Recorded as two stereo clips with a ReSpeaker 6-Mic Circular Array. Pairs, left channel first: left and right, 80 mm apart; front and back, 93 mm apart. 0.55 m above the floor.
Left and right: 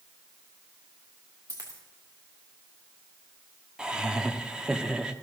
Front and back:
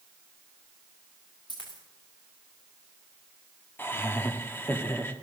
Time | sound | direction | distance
1.5 | a dropped coin | 40° right | 4 m
3.8 | laughter | 25° right | 0.9 m